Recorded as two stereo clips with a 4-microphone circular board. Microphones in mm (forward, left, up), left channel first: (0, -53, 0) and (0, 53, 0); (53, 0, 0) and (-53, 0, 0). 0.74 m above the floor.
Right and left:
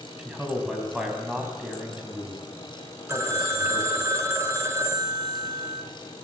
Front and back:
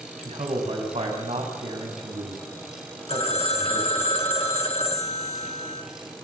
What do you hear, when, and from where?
0.2 s a man speaking: 170° left, 5 m
3.1 s a phone ringing: 25° left, 2 m